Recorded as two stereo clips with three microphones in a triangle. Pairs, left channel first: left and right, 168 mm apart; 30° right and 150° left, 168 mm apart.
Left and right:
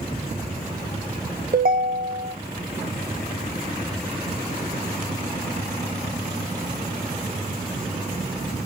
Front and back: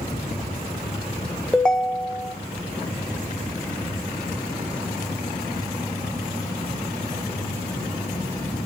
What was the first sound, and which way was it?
A ringtone, 115° right.